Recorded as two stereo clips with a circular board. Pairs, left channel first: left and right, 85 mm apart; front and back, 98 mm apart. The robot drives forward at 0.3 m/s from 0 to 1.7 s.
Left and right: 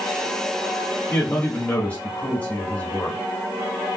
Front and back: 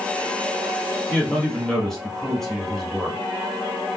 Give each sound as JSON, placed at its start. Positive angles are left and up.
{"t": 1.1, "sound": "a man speaking", "azimuth_deg": 55, "distance_m": 1.0}